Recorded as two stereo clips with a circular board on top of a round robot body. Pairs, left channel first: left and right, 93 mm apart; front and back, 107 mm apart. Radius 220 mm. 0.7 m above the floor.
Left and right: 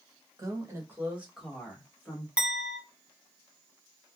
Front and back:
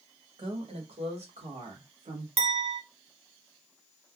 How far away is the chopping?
I don't hear chopping.